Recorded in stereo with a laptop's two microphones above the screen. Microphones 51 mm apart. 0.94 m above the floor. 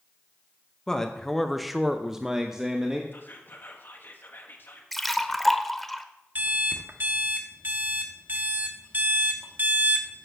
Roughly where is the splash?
Centre.